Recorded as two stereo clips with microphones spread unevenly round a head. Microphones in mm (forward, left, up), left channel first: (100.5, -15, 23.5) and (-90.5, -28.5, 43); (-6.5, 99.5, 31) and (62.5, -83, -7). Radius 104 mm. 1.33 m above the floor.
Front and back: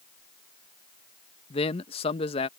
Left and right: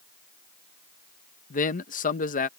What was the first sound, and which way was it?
A man speaking, 65° left.